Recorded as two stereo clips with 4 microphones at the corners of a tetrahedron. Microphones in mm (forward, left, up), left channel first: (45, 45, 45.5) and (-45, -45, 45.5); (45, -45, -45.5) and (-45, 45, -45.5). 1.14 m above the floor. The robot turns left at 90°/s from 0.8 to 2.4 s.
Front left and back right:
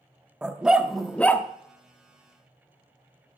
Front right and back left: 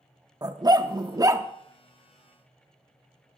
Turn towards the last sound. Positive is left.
turn(degrees=5)